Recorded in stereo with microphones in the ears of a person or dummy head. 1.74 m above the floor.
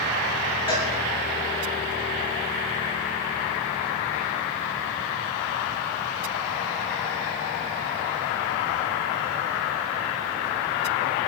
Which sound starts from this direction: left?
A cowbell, at 0.7 s.